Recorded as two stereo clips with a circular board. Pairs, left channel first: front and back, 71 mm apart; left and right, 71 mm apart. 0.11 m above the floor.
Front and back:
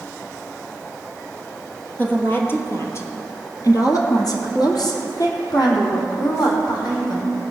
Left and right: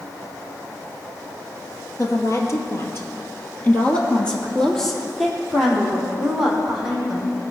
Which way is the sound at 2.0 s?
60° left.